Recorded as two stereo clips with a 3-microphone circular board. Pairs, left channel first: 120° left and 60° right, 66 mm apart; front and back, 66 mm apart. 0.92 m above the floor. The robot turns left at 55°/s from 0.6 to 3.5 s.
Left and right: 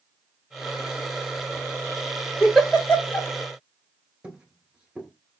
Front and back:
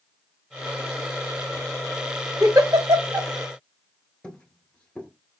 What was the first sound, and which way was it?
A giggle, 145° right.